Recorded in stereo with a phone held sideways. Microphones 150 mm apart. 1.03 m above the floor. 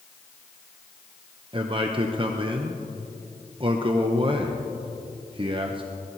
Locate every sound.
1.5 s a man speaking: 35° right (ahead or behind), 0.6 m